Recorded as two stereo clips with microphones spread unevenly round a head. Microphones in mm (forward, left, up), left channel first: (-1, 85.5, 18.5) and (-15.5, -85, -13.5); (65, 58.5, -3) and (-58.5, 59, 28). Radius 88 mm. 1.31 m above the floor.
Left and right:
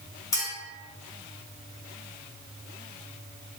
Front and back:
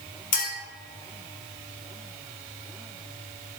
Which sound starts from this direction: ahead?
A clink, at 0.3 s.